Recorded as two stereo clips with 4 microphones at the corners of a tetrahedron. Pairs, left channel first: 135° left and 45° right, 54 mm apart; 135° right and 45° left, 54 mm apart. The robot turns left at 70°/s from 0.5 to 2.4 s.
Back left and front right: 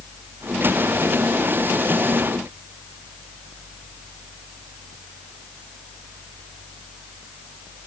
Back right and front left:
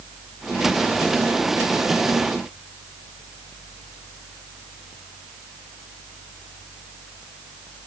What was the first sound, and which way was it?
Only background noise.